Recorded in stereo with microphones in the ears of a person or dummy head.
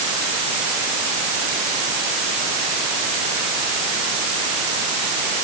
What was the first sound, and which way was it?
Only background noise.